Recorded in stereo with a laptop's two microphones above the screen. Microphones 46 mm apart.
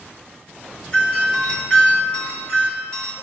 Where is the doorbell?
20° left (ahead or behind), 2.5 m.